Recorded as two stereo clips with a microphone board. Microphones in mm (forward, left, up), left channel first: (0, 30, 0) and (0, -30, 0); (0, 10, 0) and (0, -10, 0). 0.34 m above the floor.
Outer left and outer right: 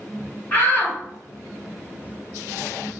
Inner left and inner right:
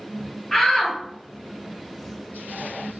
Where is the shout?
30° left (ahead or behind), 1.4 m.